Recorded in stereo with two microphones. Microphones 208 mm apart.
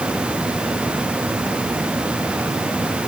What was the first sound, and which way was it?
Only background noise.